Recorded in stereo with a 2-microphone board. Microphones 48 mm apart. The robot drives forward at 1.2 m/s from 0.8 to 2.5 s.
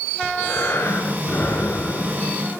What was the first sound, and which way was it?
Breathing, 55° left (ahead or behind).